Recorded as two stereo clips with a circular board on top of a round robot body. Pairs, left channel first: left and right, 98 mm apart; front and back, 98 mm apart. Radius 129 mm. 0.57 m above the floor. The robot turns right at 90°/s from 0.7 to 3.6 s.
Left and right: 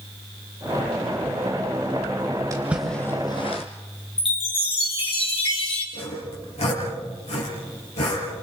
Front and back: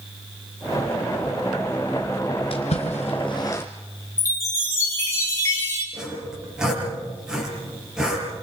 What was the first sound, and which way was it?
A splash, 30° right.